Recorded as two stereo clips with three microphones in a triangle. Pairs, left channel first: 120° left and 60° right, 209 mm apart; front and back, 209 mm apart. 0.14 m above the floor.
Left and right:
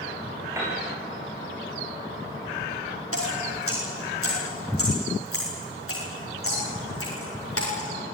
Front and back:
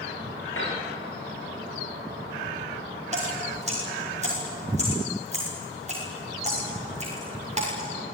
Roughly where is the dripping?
Behind left.